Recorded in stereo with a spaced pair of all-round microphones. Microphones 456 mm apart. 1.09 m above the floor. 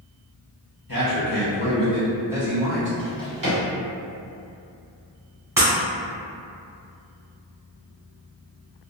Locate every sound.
0.9 s a man speaking: 45° left (ahead or behind), 0.9 m; by 2.9 s 25° right (ahead or behind), 0.8 m
3.0 s a drawer: 45° right (ahead or behind), 1.1 m
5.6 s breaking glass: 5° right (ahead or behind), 0.8 m